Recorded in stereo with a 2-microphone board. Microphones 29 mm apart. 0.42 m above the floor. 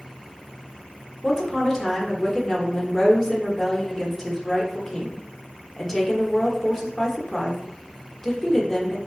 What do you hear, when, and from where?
1.2 s a woman speaking: 15° left (ahead or behind), 0.8 m